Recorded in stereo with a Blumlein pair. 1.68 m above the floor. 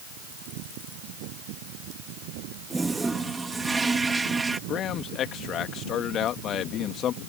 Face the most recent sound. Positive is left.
turn(degrees=30)